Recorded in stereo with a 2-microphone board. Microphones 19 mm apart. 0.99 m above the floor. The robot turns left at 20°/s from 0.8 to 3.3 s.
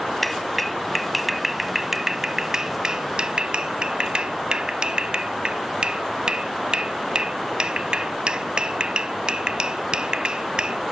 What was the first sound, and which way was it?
A clap, 5° left (ahead or behind).